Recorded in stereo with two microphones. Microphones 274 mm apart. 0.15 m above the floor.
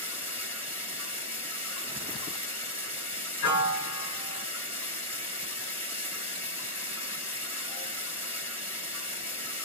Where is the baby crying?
No baby crying in this recording.